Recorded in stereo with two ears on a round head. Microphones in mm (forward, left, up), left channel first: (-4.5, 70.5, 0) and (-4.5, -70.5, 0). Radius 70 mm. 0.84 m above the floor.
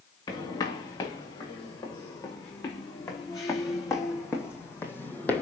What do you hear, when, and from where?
0.3 s footsteps: 25° left (ahead or behind), 5.5 m; by 5.4 s 10° left (ahead or behind), 1.7 m